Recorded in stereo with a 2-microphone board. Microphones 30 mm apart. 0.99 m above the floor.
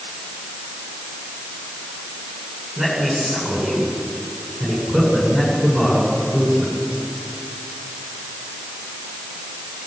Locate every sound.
2.8 s a man speaking: 15° right (ahead or behind), 8.5 m